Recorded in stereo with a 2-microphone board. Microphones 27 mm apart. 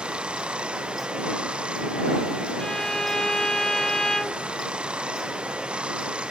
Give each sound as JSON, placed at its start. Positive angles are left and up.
{"t": 0.0, "sound": "running water", "side_deg": -45}
{"t": 2.6, "sound": "a violin", "side_deg": 30}